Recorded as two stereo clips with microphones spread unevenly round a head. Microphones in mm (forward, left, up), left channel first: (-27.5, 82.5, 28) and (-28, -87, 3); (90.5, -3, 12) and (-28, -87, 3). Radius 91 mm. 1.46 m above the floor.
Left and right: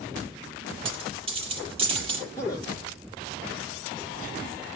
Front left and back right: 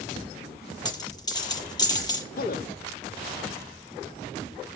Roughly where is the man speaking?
Ahead.